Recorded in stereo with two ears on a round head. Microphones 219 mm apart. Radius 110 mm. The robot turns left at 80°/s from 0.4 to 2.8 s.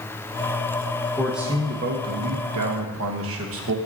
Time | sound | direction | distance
1.2 | a man speaking | 10° left | 1.3 m